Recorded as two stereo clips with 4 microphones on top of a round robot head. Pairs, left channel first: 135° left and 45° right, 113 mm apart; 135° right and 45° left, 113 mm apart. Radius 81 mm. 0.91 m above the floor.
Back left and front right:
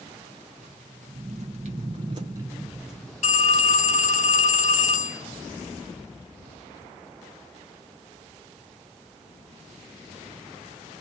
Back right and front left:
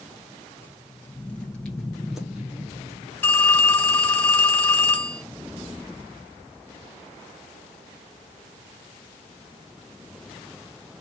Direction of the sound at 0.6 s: 60° right.